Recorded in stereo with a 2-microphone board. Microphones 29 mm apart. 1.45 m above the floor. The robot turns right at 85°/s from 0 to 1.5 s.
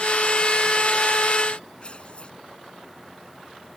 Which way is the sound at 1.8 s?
35° left (ahead or behind).